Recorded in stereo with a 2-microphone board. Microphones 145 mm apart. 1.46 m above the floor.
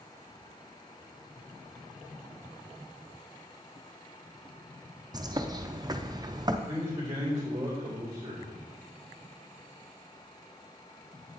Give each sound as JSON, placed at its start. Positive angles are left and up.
{"t": 5.1, "sound": "a bird", "side_deg": -30, "distance_m": 0.5}
{"t": 6.7, "sound": "a man speaking", "side_deg": -15, "distance_m": 3.0}